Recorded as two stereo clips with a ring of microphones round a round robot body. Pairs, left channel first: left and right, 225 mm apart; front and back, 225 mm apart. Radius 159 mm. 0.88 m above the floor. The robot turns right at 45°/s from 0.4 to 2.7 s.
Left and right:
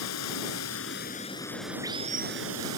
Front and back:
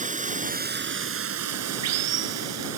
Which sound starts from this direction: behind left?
Running water, at 0.0 s.